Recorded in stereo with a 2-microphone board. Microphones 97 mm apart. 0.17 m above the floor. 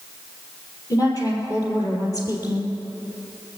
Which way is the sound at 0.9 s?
35° left (ahead or behind).